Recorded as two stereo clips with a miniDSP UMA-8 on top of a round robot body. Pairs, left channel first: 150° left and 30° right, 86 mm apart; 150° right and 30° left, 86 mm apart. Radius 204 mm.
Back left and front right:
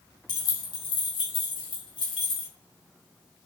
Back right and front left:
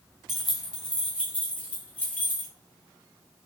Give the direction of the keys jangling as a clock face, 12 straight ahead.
8 o'clock.